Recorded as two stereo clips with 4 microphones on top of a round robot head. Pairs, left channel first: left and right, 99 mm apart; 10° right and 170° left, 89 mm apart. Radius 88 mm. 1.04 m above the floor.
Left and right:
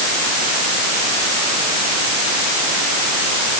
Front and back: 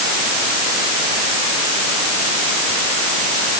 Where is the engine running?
I don't hear an engine running.